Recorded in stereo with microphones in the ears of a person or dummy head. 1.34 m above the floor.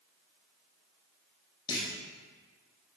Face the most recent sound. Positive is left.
turn(degrees=20)  # may be behind; listen again after turning